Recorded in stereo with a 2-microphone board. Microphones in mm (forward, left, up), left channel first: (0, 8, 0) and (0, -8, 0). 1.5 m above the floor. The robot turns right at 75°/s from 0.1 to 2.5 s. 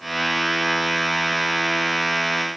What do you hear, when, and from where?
Only background noise.